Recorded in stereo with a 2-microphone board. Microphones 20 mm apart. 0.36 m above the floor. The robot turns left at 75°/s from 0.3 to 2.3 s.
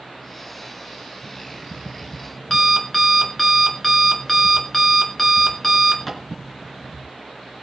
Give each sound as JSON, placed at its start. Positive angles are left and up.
{"t": 1.2, "sound": "an alarm clock", "azimuth_deg": -110, "distance_m": 3.0}